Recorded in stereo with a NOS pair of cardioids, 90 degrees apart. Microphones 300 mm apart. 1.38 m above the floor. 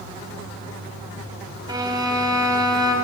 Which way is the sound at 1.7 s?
15° right.